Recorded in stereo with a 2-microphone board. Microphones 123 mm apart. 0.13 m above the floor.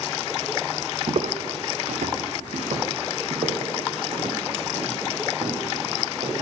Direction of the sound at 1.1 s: 50° right (ahead or behind).